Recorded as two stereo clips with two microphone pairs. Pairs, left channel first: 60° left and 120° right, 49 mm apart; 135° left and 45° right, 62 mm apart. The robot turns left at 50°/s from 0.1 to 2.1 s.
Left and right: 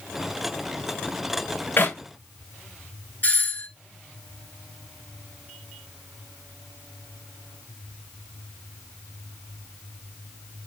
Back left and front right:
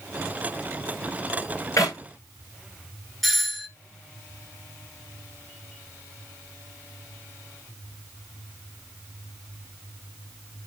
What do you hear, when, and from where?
1.8 s a clap: 105° left, 9 m; by 2.0 s 95° left, 9 m
3.2 s a doorbell: 45° left, 1.8 m